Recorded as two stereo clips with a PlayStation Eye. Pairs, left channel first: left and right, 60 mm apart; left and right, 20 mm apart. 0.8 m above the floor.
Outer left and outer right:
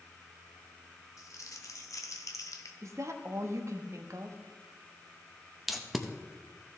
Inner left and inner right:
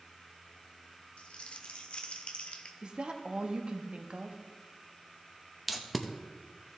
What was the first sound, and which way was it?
Crumpling, 70° left (ahead or behind).